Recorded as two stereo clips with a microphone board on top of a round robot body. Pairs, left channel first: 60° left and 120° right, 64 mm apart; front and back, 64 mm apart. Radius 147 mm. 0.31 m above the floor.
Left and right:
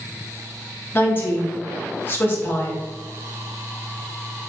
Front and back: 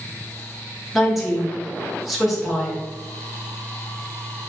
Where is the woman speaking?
95° left, 1.0 m.